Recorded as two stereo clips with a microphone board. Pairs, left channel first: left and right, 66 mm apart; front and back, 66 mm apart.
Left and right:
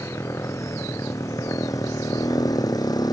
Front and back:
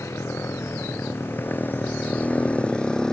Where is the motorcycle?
45° left; by 3.1 s 80° left.